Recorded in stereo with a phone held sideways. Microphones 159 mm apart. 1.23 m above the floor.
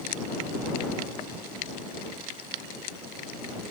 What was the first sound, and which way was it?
Only background noise.